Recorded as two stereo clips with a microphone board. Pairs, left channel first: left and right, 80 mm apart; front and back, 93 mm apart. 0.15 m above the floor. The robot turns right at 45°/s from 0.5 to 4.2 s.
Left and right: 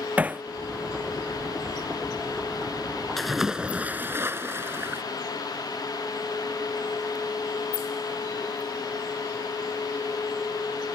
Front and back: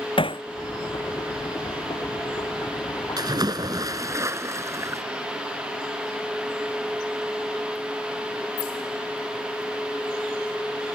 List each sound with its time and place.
0.2 s hammering: 20° right
3.2 s a splash: 175° left; by 5.0 s 135° right